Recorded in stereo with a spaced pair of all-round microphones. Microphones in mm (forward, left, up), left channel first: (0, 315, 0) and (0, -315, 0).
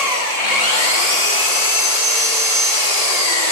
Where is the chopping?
No chopping in this recording.